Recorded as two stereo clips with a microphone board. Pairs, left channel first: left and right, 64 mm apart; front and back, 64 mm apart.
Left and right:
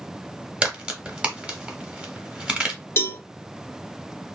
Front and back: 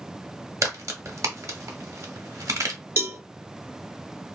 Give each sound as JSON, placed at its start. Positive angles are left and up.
{"t": 0.6, "sound": "a crack", "azimuth_deg": -160, "distance_m": 0.9}
{"t": 3.0, "sound": "a cowbell", "azimuth_deg": 135, "distance_m": 0.7}